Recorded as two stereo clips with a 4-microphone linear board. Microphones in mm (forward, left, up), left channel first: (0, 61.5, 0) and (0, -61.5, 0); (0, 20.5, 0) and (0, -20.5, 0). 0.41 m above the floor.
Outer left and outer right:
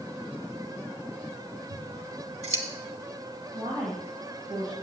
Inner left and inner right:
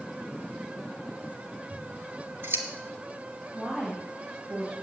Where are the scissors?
65° right (ahead or behind), 1.9 m.